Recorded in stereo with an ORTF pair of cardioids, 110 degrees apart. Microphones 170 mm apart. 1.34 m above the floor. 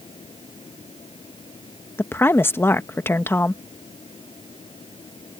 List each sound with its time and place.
0.0 s a fan: 30° left
2.0 s a woman speaking: 15° left